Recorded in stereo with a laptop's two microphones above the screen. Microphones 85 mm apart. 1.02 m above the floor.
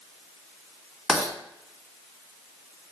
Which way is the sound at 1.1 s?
5° right (ahead or behind).